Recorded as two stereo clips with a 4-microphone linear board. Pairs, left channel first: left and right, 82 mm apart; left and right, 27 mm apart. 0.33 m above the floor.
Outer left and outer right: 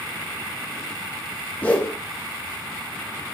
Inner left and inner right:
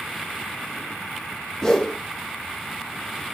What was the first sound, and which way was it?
A whoosh, 20° left (ahead or behind).